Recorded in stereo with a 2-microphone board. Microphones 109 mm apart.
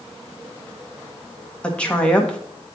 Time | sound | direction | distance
1.6 | a woman speaking | 10° left (ahead or behind) | 1.3 m